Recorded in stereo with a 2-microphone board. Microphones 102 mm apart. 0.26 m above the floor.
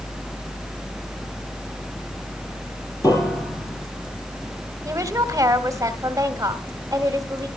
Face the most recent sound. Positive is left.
turn(degrees=-30)  # may be behind; listen again after turning